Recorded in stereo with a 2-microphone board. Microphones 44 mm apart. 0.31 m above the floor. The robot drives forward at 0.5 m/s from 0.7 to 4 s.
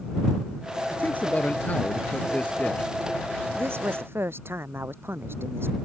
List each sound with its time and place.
0.9 s a man speaking: 40° left (ahead or behind); by 2.9 s 30° left (ahead or behind)
3.5 s a woman speaking: 65° right (ahead or behind)